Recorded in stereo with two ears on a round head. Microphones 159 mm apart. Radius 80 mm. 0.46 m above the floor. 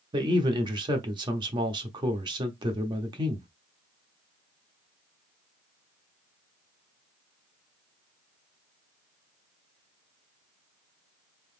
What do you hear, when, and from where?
0.1 s a man speaking: 25° right (ahead or behind), 0.9 m